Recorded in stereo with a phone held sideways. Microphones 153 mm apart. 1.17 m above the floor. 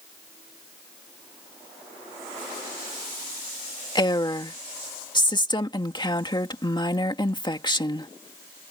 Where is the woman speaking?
30° left (ahead or behind).